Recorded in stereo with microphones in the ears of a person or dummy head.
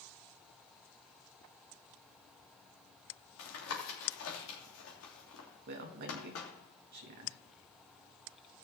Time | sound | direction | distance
3.4 | tapping | 80° left | 2.5 m
5.7 | a man speaking | 55° right (ahead or behind) | 1.9 m